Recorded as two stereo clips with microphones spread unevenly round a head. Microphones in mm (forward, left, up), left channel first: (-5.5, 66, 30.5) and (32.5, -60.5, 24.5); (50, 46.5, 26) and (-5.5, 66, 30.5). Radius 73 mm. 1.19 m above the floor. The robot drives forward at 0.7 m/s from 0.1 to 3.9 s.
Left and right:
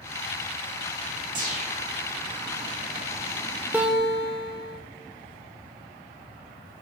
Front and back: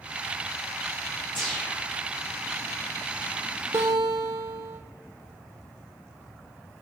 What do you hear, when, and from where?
1.4 s a whoosh: 90° right, 1.6 m; by 1.9 s 105° right, 1.7 m
3.7 s a guitar: 150° right, 0.6 m; by 4.8 s 155° right, 0.7 m